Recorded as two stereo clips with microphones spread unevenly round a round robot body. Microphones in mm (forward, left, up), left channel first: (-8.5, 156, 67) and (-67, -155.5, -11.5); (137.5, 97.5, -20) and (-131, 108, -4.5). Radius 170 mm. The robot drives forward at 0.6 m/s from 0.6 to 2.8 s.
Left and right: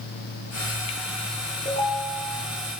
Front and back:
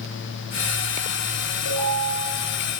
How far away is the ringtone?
About 4.5 m.